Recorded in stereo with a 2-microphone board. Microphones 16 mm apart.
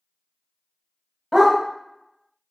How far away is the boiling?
No boiling in this recording.